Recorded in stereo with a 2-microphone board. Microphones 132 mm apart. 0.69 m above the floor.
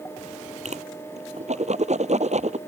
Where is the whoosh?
55° right (ahead or behind).